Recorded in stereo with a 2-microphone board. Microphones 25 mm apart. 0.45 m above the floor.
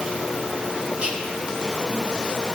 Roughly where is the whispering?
Right.